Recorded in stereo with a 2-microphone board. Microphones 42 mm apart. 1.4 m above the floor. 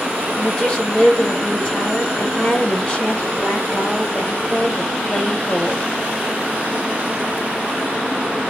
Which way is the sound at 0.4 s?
30° left (ahead or behind).